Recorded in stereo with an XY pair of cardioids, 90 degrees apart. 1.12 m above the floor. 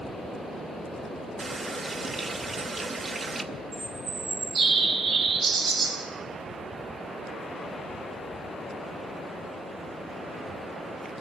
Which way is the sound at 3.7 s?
70° right.